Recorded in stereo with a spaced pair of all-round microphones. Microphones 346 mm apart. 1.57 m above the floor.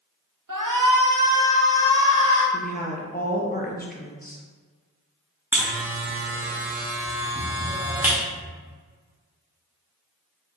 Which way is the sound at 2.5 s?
25° left (ahead or behind).